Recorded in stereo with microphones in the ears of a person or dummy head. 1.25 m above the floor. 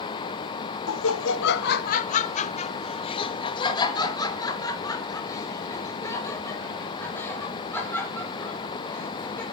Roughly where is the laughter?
Left.